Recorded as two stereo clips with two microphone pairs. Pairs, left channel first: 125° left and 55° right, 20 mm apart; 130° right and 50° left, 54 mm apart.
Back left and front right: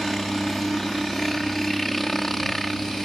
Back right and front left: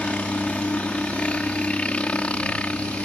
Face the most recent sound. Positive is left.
turn(degrees=-165)